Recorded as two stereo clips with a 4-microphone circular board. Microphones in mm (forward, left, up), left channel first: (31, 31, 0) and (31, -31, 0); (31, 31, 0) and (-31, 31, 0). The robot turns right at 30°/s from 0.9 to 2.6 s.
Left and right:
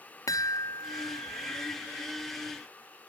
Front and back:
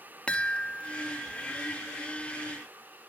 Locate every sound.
0.3 s a chime: 75° left, 0.6 m; by 1.8 s 100° left, 0.6 m